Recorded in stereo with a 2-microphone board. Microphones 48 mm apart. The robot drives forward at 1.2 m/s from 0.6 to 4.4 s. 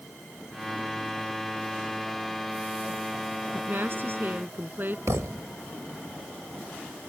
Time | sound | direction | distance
3.5 | a woman speaking | 50° right (ahead or behind) | ?
5.1 | a thud | 80° right | ?